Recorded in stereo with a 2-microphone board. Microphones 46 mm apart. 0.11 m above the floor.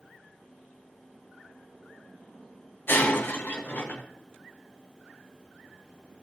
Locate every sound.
2.9 s breaking glass: 55° left (ahead or behind), 2.5 m